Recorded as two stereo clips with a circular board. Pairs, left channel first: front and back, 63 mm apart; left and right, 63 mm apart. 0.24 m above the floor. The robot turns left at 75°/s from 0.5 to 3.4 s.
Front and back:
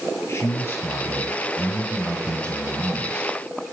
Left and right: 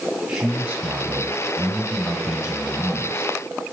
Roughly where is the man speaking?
Ahead.